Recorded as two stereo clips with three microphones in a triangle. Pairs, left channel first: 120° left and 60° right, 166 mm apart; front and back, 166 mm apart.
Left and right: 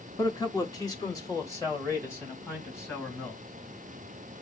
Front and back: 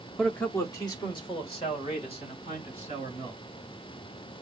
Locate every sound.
0.2 s a man speaking: 90° left, 0.9 m; by 3.4 s 45° left, 3.5 m